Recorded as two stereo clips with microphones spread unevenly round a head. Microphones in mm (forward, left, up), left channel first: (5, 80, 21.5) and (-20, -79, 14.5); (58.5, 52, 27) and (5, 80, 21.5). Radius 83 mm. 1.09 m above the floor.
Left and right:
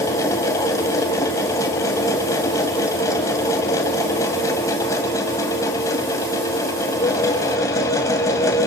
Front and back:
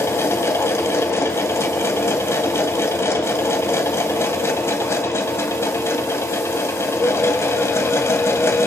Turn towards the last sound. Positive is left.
turn(degrees=10)